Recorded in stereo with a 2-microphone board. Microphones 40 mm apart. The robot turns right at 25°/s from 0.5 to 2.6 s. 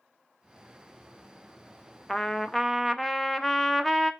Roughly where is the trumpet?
Centre.